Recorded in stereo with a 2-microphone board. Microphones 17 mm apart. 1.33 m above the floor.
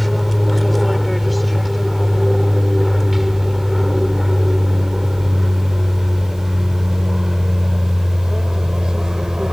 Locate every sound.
0.0 s an aircraft: 15° left (ahead or behind); by 9.5 s 40° right (ahead or behind)